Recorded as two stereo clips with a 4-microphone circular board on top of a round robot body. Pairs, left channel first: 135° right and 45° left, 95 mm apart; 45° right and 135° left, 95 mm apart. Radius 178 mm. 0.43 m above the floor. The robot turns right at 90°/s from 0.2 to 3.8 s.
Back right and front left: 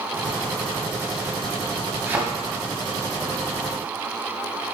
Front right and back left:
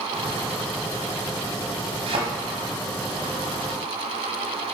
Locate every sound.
2.1 s a thud: 110° left, 1.6 m; by 2.2 s 125° left, 1.6 m